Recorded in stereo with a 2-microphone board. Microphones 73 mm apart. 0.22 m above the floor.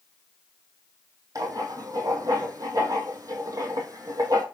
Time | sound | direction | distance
1.4 | writing | 50° right (ahead or behind) | 2 m